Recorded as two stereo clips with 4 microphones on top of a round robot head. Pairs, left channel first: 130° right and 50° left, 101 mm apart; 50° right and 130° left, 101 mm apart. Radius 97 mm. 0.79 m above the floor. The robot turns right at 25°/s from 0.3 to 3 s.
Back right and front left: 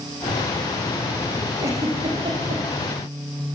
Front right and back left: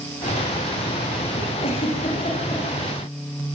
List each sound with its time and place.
1.6 s a giggle: 15° right, 8 m; by 2.6 s 10° left, 8 m